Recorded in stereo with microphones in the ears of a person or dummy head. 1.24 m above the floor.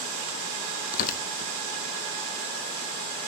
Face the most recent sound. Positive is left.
turn(degrees=45)  # may be behind; listen again after turning